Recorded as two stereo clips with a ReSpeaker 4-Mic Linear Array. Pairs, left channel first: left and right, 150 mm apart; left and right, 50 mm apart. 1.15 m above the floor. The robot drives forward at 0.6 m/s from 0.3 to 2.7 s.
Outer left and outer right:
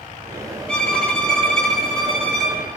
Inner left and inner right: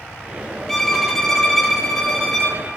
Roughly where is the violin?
Centre.